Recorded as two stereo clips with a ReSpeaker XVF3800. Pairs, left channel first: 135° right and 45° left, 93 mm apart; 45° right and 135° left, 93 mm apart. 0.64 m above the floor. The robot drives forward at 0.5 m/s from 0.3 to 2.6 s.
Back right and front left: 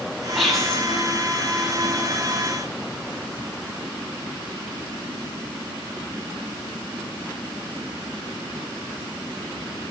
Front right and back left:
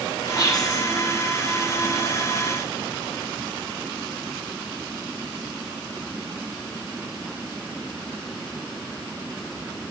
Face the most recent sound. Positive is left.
turn(degrees=-135)